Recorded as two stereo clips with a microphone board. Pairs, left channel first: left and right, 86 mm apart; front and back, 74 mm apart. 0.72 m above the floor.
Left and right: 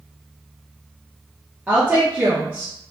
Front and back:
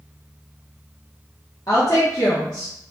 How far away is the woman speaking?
About 0.8 m.